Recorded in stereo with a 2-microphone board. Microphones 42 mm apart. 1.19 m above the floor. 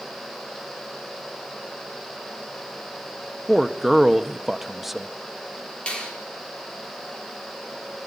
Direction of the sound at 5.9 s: 25° left (ahead or behind).